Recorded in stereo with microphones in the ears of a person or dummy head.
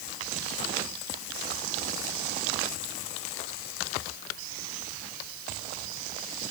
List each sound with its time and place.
Only background noise.